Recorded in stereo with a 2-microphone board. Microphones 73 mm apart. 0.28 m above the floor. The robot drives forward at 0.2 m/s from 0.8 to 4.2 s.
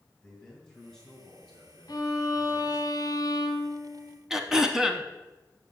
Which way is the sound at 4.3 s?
5° right (ahead or behind).